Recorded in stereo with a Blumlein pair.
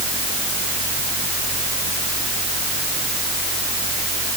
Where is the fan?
25° right.